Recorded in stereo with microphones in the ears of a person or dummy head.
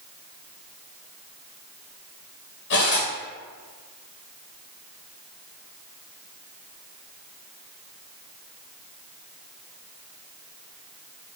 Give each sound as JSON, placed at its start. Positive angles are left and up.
{"t": 2.7, "sound": "cutlery clinking", "side_deg": 55, "distance_m": 1.5}